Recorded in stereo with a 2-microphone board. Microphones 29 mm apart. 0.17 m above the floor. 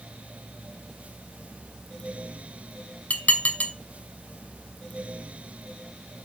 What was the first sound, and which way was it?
Dishes clattering, 55° left (ahead or behind).